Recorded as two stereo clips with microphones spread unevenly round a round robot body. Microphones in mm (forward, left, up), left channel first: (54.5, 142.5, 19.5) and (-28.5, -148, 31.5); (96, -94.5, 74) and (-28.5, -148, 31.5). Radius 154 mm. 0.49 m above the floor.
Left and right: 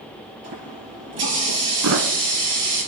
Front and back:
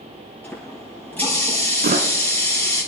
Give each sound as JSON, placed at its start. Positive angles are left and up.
{"t": 0.4, "sound": "a running tap", "azimuth_deg": -55, "distance_m": 7.0}
{"t": 1.8, "sound": "a thud", "azimuth_deg": -150, "distance_m": 1.4}